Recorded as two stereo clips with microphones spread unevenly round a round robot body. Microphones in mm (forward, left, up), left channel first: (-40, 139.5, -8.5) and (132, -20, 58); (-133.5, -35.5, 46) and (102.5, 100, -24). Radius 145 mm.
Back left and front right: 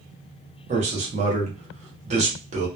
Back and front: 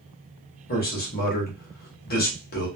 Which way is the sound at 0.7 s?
105° right.